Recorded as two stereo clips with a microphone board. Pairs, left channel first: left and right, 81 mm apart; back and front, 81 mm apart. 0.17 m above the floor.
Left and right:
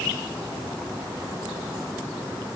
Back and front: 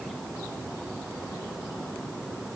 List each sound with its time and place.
Only background noise.